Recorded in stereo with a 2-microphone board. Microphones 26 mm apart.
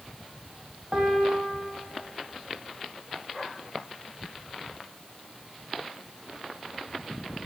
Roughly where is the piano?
Right.